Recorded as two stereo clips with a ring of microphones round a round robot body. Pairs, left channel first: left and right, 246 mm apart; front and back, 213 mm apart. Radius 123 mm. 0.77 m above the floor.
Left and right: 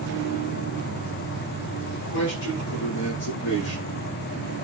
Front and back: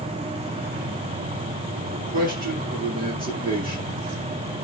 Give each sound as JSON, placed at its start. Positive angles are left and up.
{"t": 1.9, "sound": "a man speaking", "azimuth_deg": 135, "distance_m": 10.0}